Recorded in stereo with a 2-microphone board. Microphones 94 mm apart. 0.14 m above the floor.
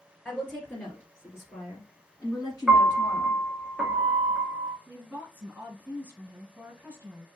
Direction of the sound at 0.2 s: 5° left (ahead or behind).